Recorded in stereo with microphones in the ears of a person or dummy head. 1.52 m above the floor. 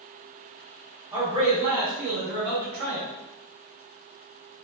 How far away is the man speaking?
About 0.9 m.